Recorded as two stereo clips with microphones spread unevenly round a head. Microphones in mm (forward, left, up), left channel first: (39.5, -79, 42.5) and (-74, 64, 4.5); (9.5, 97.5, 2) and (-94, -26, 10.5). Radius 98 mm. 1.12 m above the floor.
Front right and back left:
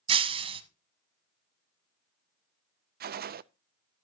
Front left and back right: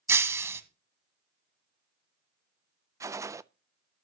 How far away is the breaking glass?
About 1.0 m.